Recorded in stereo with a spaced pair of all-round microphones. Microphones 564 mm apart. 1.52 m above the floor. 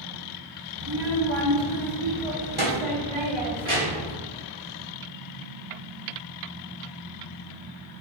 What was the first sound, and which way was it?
A child speaking, 50° right (ahead or behind).